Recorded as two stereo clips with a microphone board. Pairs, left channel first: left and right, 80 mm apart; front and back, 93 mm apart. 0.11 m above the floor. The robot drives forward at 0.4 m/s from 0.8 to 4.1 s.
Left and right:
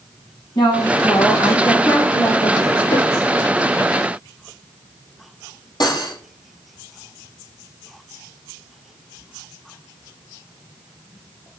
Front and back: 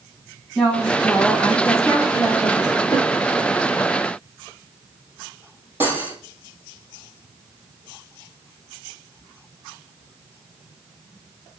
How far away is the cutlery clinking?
About 2.5 m.